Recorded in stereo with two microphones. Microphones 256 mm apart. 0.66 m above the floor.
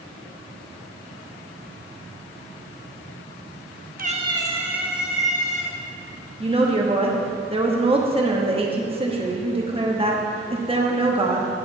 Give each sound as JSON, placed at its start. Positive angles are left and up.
{"t": 4.0, "sound": "a cat meowing", "side_deg": -35, "distance_m": 0.7}
{"t": 6.4, "sound": "a woman speaking", "side_deg": -20, "distance_m": 1.1}